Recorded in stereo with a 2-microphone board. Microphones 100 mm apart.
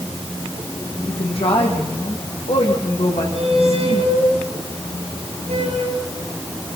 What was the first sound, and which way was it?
A woman speaking, 70° left (ahead or behind).